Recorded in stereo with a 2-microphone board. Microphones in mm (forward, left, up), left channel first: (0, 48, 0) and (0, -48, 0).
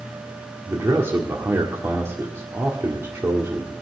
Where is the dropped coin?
I don't hear a dropped coin.